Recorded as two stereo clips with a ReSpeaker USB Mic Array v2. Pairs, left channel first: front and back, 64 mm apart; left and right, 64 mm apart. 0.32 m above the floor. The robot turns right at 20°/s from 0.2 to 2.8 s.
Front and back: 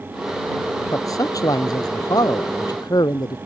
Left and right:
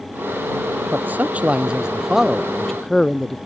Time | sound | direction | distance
0.9 | a man speaking | 30° right | ?